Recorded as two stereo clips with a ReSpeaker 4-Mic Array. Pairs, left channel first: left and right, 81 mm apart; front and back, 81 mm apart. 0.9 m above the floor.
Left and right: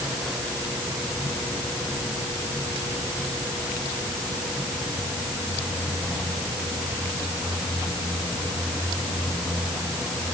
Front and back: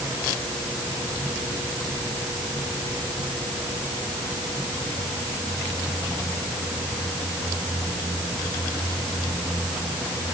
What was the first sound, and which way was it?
Only background noise.